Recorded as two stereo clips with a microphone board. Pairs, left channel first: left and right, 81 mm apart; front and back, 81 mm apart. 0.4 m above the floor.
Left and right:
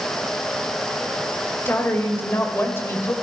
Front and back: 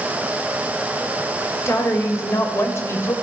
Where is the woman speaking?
40° left, 1.9 m.